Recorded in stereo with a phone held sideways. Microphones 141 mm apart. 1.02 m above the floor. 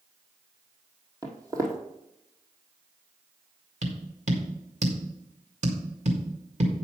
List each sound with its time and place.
1.2 s footsteps: 25° right (ahead or behind), 1.8 m
3.8 s tapping: 55° right (ahead or behind), 1.8 m